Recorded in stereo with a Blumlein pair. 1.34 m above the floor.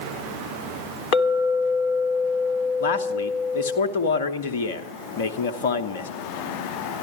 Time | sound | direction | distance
1.1 | a clink | 40° left | 1.2 m
2.8 | a man speaking | 55° left | 1.0 m